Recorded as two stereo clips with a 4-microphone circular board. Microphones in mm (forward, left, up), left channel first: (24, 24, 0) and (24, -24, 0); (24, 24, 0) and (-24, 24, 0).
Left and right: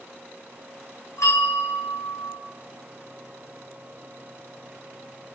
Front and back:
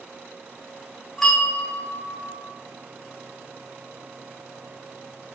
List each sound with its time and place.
1.2 s a bell: 85° left, 4.5 m